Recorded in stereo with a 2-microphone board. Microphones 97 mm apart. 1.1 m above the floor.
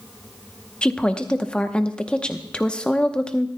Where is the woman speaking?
10° left (ahead or behind), 0.8 m.